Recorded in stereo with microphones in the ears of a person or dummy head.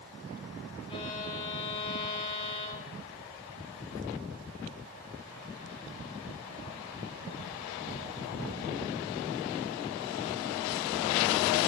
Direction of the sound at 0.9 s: 25° left (ahead or behind).